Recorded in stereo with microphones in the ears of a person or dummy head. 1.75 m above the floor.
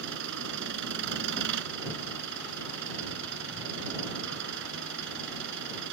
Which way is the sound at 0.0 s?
65° right (ahead or behind).